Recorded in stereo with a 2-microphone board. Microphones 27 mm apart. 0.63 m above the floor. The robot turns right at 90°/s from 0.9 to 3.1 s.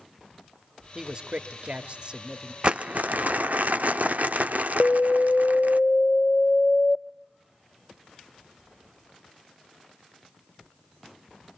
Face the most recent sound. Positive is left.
turn(degrees=50)  # may be behind; listen again after turning